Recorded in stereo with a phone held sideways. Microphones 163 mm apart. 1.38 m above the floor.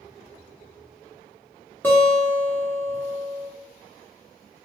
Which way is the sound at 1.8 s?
10° left (ahead or behind).